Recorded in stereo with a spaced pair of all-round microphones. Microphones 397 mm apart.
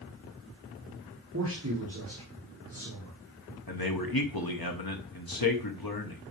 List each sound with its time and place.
1.3 s a man speaking: 35° right (ahead or behind), 2 m
3.7 s a man speaking: 60° left (ahead or behind), 1.3 m